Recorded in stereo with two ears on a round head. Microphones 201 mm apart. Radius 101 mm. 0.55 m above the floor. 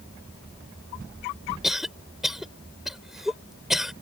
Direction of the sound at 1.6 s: Centre (ahead or behind).